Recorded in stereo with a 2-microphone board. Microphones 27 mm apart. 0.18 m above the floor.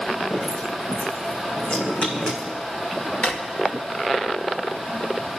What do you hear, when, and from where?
0.3 s dripping: 50° left (ahead or behind), 6.5 m
3.2 s a drawer: 65° left (ahead or behind), 2 m